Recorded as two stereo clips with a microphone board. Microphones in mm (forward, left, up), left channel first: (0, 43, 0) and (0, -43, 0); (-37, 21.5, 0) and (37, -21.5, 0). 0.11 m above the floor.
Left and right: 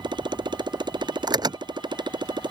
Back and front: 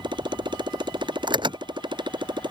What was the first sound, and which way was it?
A motorcycle, 60° right.